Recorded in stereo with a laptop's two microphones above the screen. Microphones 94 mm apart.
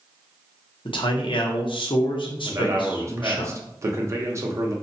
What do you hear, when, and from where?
0.8 s a man speaking: 70° left (ahead or behind), 0.6 m
2.4 s a man speaking: 30° right (ahead or behind), 0.7 m